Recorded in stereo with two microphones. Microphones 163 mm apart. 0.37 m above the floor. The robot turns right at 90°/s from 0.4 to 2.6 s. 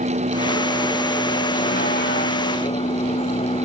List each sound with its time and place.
0.0 s a vehicle: 60° right; by 3.6 s 140° left